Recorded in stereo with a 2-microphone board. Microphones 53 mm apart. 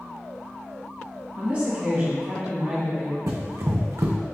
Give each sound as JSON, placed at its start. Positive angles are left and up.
{"t": 1.3, "sound": "a woman speaking", "side_deg": -30, "distance_m": 1.3}
{"t": 3.3, "sound": "running footsteps", "side_deg": -70, "distance_m": 0.6}